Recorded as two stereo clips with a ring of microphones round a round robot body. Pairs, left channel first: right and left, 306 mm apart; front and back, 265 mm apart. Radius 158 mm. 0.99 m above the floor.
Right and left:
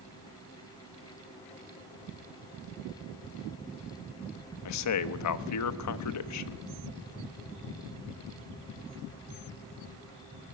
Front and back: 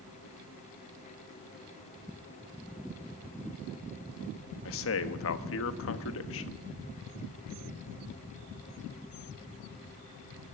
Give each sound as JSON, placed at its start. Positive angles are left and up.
{"t": 4.7, "sound": "a man speaking", "azimuth_deg": -50, "distance_m": 1.2}